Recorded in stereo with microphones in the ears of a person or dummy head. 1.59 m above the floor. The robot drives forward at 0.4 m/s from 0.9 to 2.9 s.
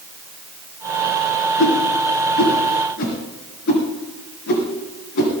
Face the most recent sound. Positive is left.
turn(degrees=60)  # may be behind; listen again after turning